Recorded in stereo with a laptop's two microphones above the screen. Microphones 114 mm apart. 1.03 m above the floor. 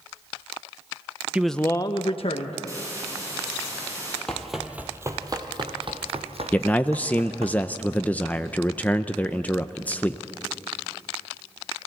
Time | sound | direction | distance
1.3 | a man speaking | 10° right (ahead or behind) | 0.7 m
2.7 | a hiss | 25° right (ahead or behind) | 9 m
4.3 | running footsteps | 5° left (ahead or behind) | 1.2 m
6.5 | a man speaking | 15° left (ahead or behind) | 0.5 m